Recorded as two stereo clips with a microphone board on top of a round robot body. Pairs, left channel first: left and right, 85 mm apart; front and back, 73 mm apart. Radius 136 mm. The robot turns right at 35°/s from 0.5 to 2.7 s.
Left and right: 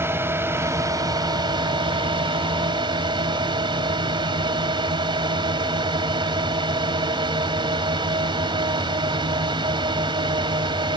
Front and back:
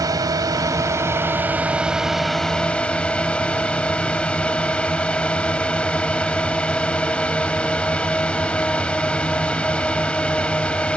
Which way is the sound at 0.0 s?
150° right.